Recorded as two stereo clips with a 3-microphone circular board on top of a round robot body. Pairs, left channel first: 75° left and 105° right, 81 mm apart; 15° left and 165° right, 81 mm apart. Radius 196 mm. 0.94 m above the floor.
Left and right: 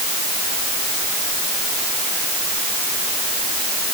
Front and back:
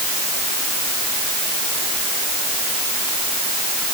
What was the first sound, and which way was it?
Only background noise.